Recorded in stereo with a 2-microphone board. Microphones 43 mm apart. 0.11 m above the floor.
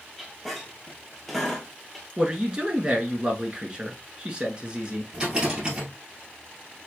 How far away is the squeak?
About 1.2 m.